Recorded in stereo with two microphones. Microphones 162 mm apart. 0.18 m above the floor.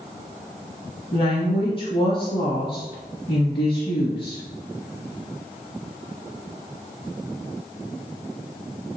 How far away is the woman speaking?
About 1.5 m.